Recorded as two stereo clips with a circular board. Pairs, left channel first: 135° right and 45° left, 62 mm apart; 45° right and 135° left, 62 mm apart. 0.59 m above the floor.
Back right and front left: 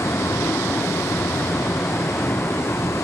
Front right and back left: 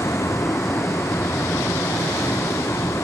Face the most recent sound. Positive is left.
turn(degrees=-90)